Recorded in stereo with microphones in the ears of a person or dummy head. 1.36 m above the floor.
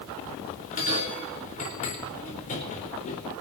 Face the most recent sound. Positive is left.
turn(degrees=45)  # may be behind; listen again after turning